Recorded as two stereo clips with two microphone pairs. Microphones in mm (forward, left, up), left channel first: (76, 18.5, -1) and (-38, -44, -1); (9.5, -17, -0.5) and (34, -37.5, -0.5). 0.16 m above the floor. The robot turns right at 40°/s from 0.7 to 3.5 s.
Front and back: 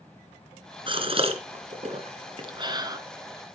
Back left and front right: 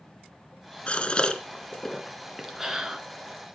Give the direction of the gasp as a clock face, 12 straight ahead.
6 o'clock.